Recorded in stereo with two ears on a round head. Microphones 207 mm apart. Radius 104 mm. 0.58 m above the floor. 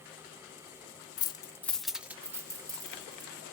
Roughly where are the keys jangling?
Centre.